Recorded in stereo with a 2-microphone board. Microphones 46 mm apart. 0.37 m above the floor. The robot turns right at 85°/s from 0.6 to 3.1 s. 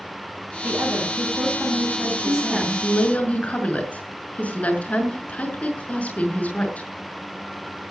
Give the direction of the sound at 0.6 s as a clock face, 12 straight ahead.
5 o'clock.